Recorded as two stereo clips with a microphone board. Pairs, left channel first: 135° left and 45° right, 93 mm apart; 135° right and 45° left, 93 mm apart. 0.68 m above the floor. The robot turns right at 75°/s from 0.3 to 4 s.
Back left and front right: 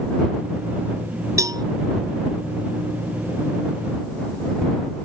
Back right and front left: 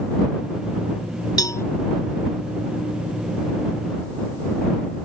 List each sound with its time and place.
1.4 s a cowbell: 95° right; by 1.6 s 75° right